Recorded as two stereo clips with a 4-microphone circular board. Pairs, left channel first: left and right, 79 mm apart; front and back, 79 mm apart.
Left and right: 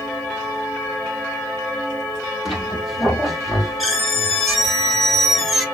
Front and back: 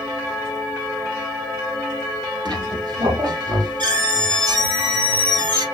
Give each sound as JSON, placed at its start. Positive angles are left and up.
{"t": 2.5, "sound": "a squeak", "azimuth_deg": 180, "distance_m": 1.8}